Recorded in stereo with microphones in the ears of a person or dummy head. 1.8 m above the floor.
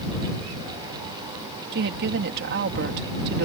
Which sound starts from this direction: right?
A woman speaking, at 1.7 s.